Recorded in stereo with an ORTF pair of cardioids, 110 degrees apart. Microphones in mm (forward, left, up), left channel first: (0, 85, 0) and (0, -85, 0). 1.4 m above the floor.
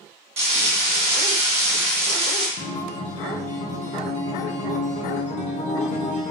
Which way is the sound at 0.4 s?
40° right.